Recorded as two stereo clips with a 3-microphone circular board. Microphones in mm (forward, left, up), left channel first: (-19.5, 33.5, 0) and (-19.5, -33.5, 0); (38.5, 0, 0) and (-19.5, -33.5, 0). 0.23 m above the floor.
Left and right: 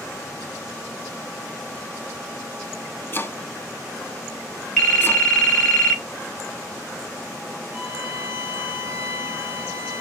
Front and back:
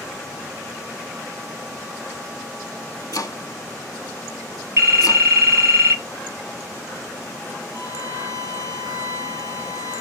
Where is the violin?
135° right, 1.3 m.